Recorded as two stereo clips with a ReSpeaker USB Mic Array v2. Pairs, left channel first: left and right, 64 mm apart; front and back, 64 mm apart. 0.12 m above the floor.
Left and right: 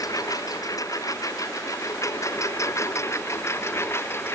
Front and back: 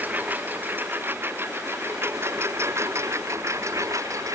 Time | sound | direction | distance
0.0 | a lawn mower | 115° left | ?